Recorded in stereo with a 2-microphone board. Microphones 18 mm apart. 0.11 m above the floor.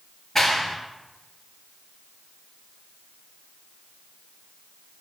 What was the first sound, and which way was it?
A clap, 15° left (ahead or behind).